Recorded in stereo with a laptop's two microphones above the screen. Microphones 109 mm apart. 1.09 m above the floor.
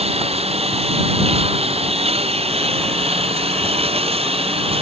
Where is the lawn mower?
65° right (ahead or behind); by 4.8 s 60° right (ahead or behind).